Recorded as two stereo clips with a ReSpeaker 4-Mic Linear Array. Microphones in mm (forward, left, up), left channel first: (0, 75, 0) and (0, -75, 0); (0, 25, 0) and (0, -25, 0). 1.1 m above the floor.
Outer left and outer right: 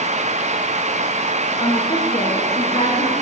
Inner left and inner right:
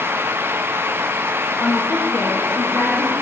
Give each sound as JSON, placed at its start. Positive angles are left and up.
{"t": 1.6, "sound": "a woman speaking", "side_deg": 35, "distance_m": 0.7}